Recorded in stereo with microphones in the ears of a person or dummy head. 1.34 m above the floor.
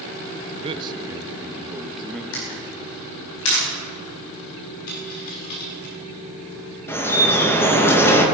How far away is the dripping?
About 1.9 m.